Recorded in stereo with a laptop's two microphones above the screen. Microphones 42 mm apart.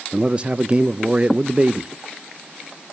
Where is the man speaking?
25° right (ahead or behind), 0.5 m.